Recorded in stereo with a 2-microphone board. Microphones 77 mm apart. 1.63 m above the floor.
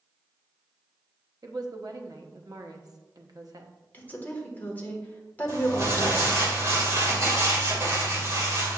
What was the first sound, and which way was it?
A woman speaking, 55° right (ahead or behind).